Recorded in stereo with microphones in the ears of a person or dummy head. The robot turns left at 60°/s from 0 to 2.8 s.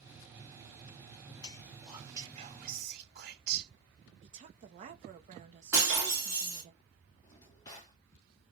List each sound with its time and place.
1.4 s whispering: 25° left, 0.9 m; by 3.7 s 55° right, 0.9 m
4.2 s a woman speaking: 40° right (ahead or behind), 0.8 m
5.7 s breaking glass: 10° right (ahead or behind), 1.3 m
7.2 s a drawer: 20° left (ahead or behind), 0.5 m